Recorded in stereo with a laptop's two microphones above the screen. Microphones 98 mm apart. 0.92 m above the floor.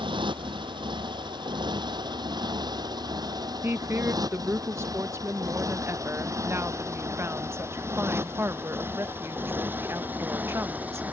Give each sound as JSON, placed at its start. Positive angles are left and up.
{"t": 0.0, "sound": "a motorcycle", "side_deg": -55}
{"t": 3.6, "sound": "a woman speaking", "side_deg": -25}